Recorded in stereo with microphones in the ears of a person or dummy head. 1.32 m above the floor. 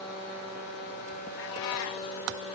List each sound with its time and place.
1.4 s a cat meowing: 55° left (ahead or behind), 1.6 m